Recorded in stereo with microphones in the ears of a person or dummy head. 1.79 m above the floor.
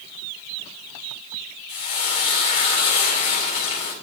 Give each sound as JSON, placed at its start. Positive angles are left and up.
{"t": 1.7, "sound": "frying", "side_deg": 30, "distance_m": 2.5}